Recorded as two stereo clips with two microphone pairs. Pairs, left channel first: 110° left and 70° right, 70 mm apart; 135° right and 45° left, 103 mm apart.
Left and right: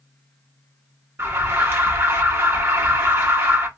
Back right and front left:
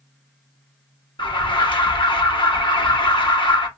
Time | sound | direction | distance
1.2 | an alarm | 115° right | 0.9 m